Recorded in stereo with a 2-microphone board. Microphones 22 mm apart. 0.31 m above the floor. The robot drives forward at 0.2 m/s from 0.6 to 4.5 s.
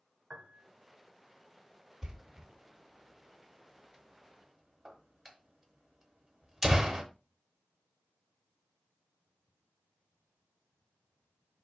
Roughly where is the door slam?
Right.